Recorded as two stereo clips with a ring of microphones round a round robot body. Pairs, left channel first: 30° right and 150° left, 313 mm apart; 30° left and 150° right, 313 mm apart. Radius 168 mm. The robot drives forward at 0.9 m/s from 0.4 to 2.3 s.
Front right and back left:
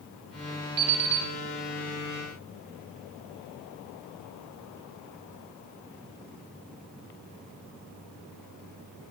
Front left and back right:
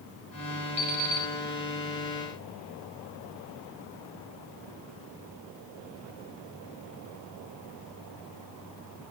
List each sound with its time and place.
0.8 s an alarm clock: 140° left, 1.6 m; by 1.3 s 150° left, 1.9 m